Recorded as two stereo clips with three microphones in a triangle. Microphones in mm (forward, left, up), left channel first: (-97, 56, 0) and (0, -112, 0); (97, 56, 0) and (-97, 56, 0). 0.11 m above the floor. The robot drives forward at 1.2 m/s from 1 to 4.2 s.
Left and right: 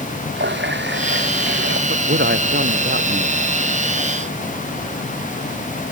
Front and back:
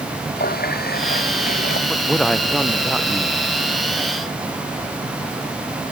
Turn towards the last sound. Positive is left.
turn(degrees=-100)